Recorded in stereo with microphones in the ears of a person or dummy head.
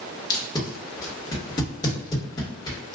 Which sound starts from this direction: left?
Tape being pulled, at 0.3 s.